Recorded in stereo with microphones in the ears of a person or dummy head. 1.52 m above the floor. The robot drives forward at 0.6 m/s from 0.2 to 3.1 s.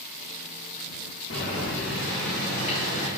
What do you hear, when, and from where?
1.3 s boiling: 65° left (ahead or behind), 1.5 m; by 3.1 s 40° left (ahead or behind), 2 m